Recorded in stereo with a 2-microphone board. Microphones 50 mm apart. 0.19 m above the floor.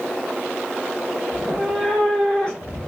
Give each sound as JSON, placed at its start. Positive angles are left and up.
{"t": 1.3, "sound": "a cat meowing", "side_deg": 0, "distance_m": 1.2}